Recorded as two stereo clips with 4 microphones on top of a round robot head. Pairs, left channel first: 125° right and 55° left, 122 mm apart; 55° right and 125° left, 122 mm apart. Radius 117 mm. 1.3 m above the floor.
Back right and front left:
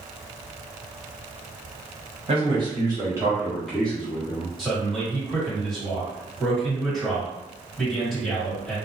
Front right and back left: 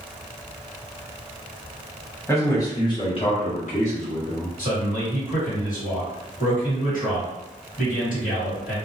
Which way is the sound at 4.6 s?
40° right.